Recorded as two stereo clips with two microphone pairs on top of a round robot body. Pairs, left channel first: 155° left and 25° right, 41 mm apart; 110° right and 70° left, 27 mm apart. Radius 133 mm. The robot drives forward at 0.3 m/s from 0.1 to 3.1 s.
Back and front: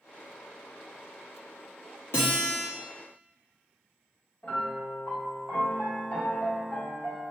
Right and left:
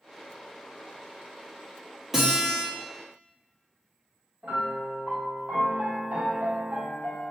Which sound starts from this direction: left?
A piano, at 4.4 s.